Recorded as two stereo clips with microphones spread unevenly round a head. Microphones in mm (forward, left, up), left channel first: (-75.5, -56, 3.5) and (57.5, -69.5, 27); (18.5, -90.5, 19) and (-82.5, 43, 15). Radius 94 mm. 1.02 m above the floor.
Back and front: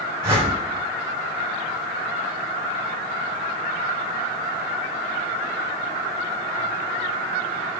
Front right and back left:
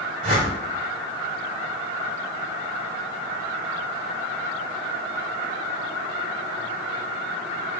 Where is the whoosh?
60° left, 3.5 m.